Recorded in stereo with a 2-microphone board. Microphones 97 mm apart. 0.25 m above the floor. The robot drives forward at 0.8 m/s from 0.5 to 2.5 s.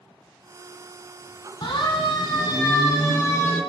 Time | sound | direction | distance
1.6 | a siren | 55° left (ahead or behind) | 3 m